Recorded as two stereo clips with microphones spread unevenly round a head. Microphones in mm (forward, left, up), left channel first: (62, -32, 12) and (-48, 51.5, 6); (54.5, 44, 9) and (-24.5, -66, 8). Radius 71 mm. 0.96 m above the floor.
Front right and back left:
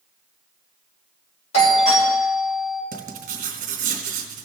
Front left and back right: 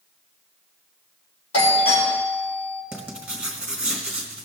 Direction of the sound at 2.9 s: 155° left.